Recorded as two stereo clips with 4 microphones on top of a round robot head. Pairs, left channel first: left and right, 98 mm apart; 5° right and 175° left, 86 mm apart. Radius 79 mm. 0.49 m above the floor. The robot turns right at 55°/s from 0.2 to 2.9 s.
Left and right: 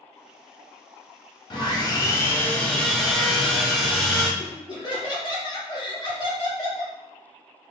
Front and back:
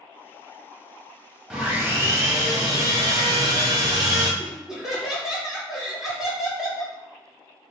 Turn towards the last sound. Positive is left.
turn(degrees=95)